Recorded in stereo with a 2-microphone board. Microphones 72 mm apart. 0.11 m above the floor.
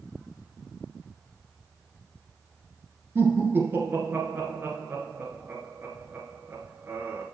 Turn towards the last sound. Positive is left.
turn(degrees=-30)  # may be behind; listen again after turning